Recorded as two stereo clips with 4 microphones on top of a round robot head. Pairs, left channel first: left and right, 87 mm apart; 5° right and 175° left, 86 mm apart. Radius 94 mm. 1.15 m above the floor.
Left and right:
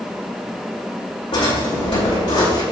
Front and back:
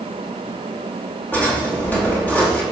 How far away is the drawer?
About 5 m.